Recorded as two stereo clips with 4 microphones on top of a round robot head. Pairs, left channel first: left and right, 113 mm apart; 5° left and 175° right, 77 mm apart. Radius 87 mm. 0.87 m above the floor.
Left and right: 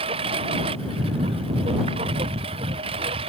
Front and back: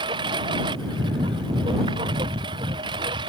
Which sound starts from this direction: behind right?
A lawn mower, at 0.0 s.